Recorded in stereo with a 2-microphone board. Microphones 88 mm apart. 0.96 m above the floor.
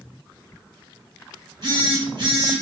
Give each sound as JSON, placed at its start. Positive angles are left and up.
{"t": 1.6, "sound": "a phone buzzing", "side_deg": -60, "distance_m": 1.4}